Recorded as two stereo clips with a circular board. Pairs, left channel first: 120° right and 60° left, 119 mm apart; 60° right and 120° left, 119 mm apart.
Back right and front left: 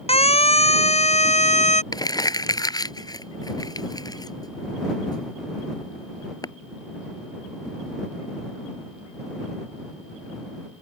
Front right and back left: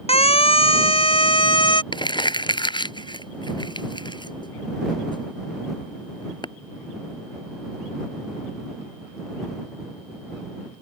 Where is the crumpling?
80° right.